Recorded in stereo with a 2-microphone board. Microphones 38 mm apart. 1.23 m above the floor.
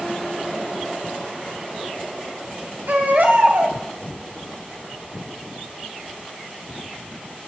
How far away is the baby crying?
About 1.8 m.